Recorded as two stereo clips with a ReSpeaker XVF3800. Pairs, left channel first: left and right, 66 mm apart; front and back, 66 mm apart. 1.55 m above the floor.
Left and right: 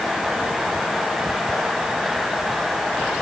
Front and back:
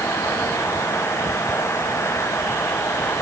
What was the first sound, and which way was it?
Only background noise.